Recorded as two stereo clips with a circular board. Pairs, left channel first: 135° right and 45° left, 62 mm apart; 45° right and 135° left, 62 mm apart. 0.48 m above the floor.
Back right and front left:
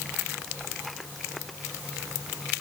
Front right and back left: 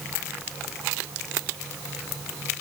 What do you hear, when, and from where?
Only background noise.